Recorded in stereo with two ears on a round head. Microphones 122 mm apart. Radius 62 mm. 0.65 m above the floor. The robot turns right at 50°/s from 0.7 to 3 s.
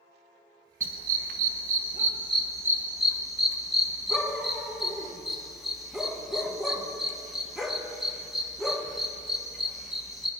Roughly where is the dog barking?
Right.